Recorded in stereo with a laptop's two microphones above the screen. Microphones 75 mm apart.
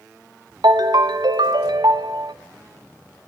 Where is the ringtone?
75° right (ahead or behind), 0.7 m.